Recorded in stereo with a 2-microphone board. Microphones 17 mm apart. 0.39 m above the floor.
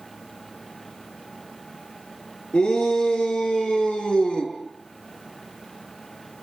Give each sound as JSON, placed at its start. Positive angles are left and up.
{"t": 2.5, "sound": "a shout", "side_deg": 75, "distance_m": 7.0}